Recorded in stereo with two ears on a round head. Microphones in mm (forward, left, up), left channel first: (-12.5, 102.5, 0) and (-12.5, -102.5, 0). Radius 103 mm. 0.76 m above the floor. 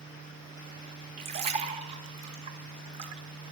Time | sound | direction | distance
1.2 | a splash | 25° right (ahead or behind) | 0.5 m